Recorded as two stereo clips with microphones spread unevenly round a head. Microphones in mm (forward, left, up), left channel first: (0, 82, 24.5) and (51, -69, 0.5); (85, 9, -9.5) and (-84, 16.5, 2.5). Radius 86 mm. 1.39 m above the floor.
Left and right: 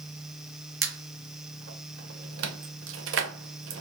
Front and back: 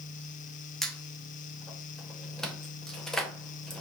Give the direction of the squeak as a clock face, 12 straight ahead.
3 o'clock.